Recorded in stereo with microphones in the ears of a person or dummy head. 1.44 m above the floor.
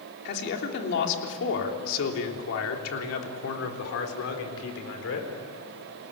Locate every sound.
0.2 s a man speaking: 60° left (ahead or behind), 3.5 m; by 5.3 s 70° left (ahead or behind), 4.5 m